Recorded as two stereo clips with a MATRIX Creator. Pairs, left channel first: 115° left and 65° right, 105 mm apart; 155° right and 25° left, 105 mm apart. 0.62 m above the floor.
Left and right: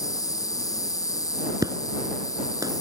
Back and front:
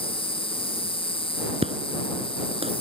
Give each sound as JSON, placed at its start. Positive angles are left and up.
{"t": 0.0, "sound": "an insect", "azimuth_deg": 170}
{"t": 1.6, "sound": "an explosion", "azimuth_deg": -10}